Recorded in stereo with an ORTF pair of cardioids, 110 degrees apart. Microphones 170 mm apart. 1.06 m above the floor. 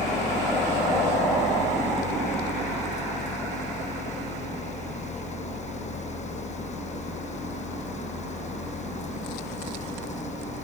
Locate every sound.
0.0 s a fan: 40° left